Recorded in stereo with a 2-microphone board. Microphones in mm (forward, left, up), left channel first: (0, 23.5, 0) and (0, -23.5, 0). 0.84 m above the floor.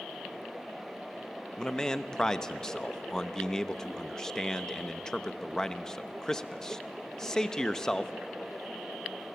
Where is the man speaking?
15° left (ahead or behind), 0.9 m.